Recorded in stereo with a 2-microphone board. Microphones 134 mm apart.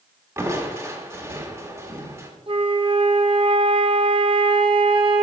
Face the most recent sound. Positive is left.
turn(degrees=-40)  # may be behind; listen again after turning